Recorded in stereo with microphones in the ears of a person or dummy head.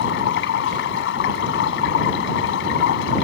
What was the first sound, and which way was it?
Running water, 70° left (ahead or behind).